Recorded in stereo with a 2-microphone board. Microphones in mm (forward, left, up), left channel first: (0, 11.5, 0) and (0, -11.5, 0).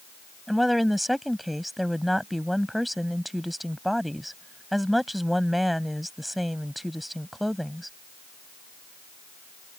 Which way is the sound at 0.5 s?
5° right (ahead or behind).